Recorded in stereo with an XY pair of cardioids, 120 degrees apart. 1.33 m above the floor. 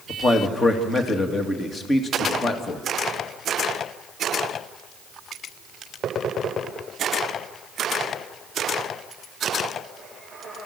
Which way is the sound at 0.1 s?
30° left.